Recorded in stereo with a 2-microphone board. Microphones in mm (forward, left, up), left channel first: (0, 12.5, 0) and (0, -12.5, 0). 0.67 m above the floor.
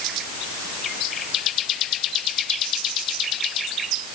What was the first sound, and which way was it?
Only background noise.